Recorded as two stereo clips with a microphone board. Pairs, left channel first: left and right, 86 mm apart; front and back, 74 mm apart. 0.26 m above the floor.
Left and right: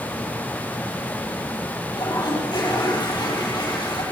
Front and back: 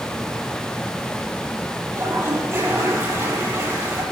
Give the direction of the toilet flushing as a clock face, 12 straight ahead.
8 o'clock.